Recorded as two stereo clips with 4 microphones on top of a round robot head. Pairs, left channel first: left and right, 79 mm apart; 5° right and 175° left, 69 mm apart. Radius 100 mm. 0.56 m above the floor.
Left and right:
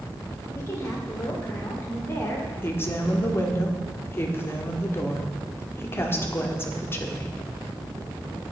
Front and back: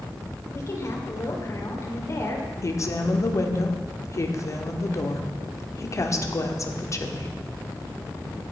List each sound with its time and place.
0.5 s a woman speaking: 35° left, 2.5 m
2.6 s a woman speaking: 30° left, 1.5 m